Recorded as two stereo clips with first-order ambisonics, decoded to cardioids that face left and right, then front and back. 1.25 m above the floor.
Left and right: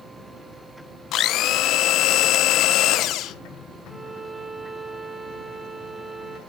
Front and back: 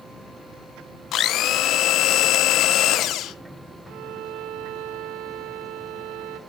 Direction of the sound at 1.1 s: 45° left.